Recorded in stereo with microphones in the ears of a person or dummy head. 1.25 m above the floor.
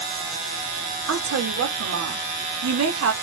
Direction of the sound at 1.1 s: 85° right.